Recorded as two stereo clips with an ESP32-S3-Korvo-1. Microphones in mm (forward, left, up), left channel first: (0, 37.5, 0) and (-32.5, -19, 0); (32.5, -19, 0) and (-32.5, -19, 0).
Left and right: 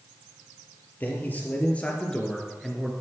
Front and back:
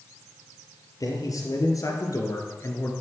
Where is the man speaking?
5° left, 4 m; by 2.9 s 35° right, 2.5 m.